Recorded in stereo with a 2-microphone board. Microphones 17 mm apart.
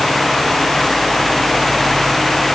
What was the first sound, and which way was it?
Only background noise.